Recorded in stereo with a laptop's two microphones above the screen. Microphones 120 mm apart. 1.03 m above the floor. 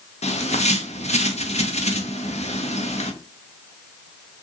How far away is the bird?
About 0.6 m.